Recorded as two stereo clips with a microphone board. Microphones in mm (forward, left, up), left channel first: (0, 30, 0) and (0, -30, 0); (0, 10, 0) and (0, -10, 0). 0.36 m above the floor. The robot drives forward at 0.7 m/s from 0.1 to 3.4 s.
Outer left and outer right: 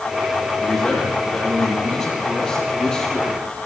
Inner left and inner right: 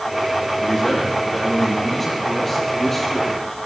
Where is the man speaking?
10° left (ahead or behind), 9.5 m.